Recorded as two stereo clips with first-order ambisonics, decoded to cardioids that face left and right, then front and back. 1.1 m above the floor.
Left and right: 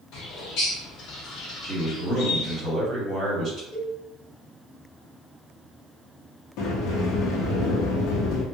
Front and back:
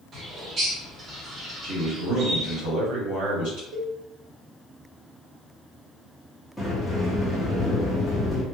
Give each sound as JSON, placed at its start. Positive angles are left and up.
{"t": 0.1, "sound": "a bird", "azimuth_deg": 120, "distance_m": 0.7}
{"t": 1.6, "sound": "a man speaking", "azimuth_deg": -160, "distance_m": 1.6}
{"t": 3.7, "sound": "a cowbell", "azimuth_deg": 145, "distance_m": 0.8}
{"t": 6.6, "sound": "a sliding door", "azimuth_deg": 95, "distance_m": 0.6}